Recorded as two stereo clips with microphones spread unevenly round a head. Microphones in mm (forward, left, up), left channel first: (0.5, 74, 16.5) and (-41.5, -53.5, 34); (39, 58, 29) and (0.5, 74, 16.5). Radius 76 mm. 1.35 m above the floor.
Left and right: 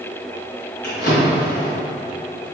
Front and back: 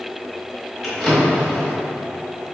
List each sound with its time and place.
0.8 s a drawer: 40° left, 1.6 m